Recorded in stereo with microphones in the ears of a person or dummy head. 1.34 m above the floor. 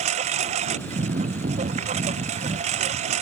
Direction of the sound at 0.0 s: 45° right (ahead or behind).